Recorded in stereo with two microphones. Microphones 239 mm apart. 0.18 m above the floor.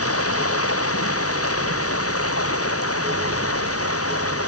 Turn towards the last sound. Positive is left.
turn(degrees=70)  # may be behind; listen again after turning